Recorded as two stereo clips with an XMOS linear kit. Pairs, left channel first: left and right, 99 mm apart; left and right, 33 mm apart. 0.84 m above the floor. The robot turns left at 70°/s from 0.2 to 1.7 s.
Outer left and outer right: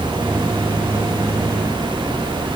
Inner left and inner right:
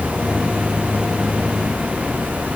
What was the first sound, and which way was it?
Only background noise.